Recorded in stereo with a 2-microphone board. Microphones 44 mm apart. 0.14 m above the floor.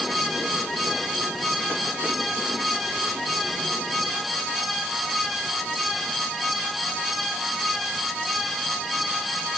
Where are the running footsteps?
No running footsteps in this recording.